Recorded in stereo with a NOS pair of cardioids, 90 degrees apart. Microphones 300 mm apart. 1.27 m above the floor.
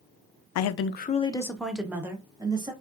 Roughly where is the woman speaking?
Left.